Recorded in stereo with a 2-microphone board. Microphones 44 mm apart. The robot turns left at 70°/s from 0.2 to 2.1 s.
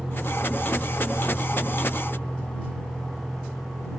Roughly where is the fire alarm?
I don't hear a fire alarm.